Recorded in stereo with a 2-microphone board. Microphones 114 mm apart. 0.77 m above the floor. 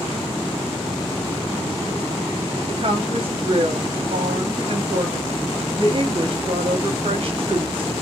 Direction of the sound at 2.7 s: 50° right (ahead or behind).